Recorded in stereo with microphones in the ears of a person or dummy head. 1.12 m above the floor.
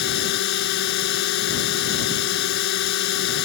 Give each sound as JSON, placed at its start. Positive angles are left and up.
{"t": 0.0, "sound": "a drone", "side_deg": 70}